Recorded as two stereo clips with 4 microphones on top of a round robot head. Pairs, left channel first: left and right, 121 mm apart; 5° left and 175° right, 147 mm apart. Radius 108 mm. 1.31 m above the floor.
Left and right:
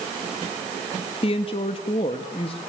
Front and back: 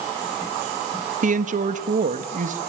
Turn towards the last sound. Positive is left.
turn(degrees=150)